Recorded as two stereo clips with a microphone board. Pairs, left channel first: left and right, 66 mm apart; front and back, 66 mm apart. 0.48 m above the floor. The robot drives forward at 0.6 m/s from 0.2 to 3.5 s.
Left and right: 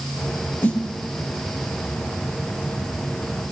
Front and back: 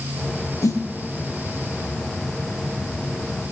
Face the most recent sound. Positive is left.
turn(degrees=40)